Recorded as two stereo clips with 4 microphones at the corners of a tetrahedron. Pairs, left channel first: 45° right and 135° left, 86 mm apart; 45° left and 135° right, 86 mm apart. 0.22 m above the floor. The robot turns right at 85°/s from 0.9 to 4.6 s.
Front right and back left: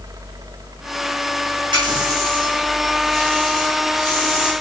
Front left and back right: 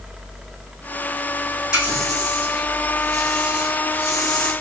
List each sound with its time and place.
1.7 s a running tap: 145° left, 7 m; by 4.5 s 20° left, 7 m